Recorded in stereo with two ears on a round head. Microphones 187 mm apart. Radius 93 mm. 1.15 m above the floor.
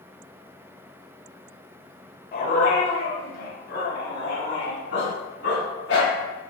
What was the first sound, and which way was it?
A dog barking, 50° left (ahead or behind).